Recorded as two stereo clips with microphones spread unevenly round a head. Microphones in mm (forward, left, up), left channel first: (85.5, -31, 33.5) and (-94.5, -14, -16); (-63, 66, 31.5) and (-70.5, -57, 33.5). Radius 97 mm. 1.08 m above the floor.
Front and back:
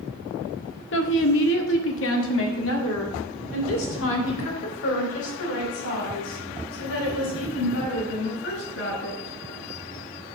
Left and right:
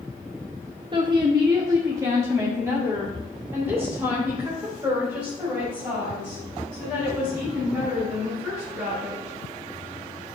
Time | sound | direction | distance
0.9 | a woman speaking | 30° right | 1.1 m